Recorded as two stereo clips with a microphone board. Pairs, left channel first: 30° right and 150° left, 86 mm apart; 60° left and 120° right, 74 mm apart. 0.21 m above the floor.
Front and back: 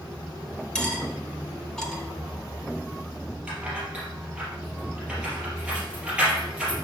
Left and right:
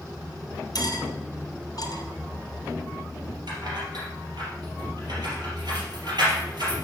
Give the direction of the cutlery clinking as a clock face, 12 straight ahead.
10 o'clock.